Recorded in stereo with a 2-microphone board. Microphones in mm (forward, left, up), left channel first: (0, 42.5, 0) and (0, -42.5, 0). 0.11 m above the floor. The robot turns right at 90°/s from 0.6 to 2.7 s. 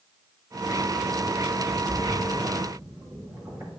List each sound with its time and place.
1.9 s a splash: 40° left (ahead or behind), 4 m; by 3.7 s 35° right (ahead or behind), 4 m